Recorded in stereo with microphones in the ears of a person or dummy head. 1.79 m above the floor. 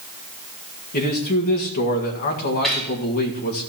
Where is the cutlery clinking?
Centre (ahead or behind), 1.4 m.